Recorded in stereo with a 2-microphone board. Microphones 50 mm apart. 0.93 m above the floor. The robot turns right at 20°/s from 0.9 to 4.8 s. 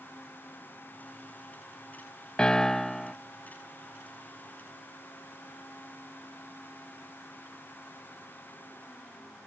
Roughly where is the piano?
Centre.